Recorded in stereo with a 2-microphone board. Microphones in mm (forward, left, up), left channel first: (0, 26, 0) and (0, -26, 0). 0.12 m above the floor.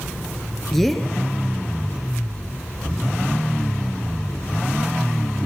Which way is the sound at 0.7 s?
Centre (ahead or behind).